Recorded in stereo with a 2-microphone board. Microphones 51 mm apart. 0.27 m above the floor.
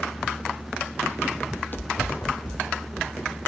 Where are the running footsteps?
5° left (ahead or behind), 0.5 m; by 3.4 s 70° left (ahead or behind), 2.5 m.